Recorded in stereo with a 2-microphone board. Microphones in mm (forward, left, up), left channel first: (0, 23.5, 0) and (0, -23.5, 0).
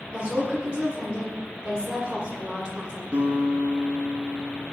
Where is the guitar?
30° right (ahead or behind), 1.0 m.